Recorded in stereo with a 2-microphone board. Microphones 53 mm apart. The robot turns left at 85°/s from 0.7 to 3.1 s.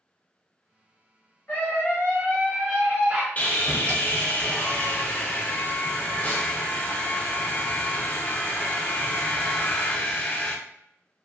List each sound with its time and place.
1.5 s a scream: 100° left, 1.3 m; by 3.3 s 40° right, 1.3 m
3.4 s sawing: 30° left (ahead or behind), 0.6 m